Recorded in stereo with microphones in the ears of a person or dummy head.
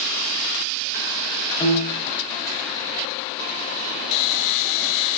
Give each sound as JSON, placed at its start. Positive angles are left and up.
{"t": 1.6, "sound": "a piano", "side_deg": 25, "distance_m": 3.0}